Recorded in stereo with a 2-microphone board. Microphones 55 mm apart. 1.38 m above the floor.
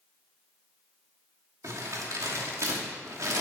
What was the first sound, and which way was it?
Crumpling, 80° right.